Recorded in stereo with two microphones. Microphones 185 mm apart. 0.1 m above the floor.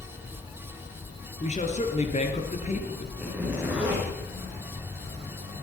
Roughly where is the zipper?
Centre.